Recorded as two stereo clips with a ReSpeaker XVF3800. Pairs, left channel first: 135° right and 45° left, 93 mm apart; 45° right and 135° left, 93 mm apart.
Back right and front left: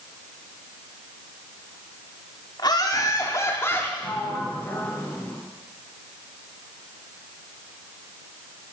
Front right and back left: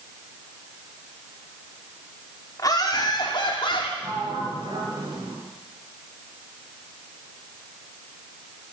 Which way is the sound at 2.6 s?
95° right.